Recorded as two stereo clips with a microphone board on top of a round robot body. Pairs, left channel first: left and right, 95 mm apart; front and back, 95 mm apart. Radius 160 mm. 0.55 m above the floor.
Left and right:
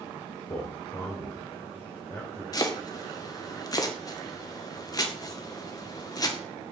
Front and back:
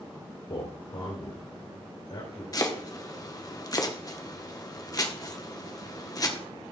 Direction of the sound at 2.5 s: 45° left.